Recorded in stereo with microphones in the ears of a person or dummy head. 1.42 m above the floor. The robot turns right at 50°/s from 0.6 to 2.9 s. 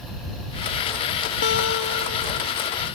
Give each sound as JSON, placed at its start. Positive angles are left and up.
{"t": 1.4, "sound": "a guitar", "azimuth_deg": 65}